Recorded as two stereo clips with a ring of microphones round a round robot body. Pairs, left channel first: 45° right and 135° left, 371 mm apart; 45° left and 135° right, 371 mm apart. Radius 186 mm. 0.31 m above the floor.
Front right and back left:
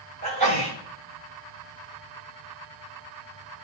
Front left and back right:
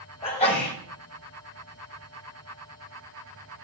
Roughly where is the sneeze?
Behind left.